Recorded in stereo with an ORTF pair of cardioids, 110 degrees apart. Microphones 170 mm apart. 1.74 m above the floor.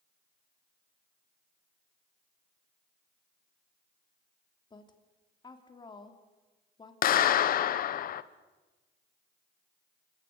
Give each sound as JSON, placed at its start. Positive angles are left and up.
{"t": 4.7, "sound": "a woman speaking", "azimuth_deg": 25, "distance_m": 3.5}
{"t": 7.0, "sound": "a clap", "azimuth_deg": 55, "distance_m": 1.0}